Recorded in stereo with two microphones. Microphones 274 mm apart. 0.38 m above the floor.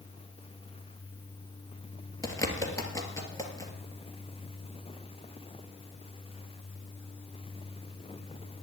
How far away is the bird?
About 2.5 m.